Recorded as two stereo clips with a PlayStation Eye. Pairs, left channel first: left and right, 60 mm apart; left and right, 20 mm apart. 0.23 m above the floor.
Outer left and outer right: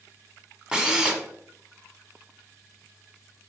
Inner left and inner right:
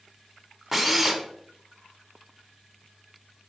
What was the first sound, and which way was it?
A drill, 15° right (ahead or behind).